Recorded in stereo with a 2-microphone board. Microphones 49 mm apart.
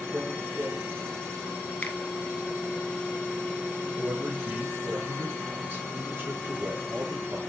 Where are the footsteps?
50° right (ahead or behind), 1.3 m.